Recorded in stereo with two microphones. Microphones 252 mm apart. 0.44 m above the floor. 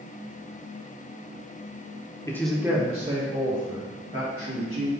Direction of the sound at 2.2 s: 15° left (ahead or behind).